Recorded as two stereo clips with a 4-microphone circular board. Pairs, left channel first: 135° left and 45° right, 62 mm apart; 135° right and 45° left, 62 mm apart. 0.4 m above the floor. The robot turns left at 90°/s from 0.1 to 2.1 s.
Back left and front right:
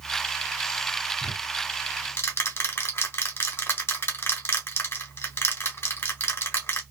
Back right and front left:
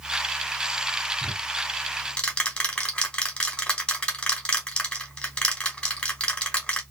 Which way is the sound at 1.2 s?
125° right.